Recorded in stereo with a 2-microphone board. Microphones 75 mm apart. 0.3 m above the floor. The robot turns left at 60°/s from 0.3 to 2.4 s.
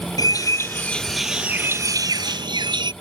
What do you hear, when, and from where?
0.2 s a bird: 55° left; by 2.9 s 75° right